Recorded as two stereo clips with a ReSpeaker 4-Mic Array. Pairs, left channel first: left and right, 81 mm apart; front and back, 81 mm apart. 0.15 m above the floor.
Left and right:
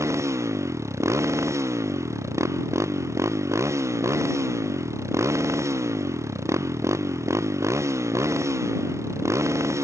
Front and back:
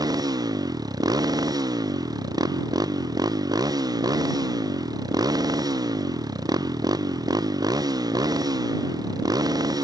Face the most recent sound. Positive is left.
turn(degrees=-140)